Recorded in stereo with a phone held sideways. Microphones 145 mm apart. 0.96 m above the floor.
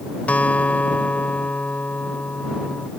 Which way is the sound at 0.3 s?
10° left (ahead or behind).